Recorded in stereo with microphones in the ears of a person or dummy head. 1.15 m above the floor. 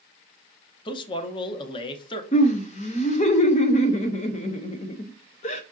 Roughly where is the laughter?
Left.